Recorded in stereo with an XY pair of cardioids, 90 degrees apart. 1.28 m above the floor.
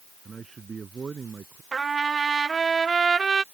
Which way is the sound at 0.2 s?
40° right.